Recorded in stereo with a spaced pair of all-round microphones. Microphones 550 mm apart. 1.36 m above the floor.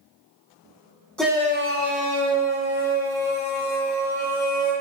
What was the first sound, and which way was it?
A shout, centre (ahead or behind).